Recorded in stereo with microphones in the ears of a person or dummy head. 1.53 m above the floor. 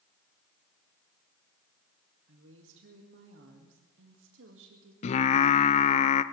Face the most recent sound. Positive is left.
turn(degrees=40)  # may be behind; listen again after turning